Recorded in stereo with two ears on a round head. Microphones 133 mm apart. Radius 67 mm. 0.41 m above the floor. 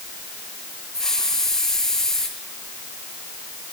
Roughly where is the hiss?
Centre.